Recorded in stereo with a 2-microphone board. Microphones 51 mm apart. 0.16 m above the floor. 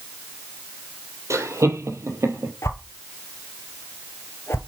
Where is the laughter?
70° right (ahead or behind), 4 m; by 2.5 s 65° right (ahead or behind), 4 m.